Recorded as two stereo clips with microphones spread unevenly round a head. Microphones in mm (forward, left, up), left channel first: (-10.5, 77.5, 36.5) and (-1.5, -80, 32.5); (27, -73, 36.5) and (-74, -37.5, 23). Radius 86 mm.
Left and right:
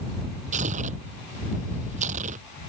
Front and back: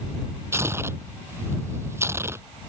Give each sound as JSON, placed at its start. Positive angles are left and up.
{"t": 0.5, "sound": "tearing paper", "azimuth_deg": -130}